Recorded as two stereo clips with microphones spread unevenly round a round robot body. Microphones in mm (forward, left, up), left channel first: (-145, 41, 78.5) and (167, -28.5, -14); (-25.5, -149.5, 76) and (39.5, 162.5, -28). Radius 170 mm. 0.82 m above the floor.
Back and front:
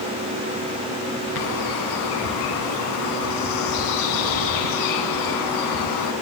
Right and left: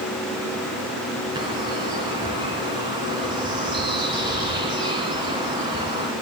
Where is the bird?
160° left, 1.7 m.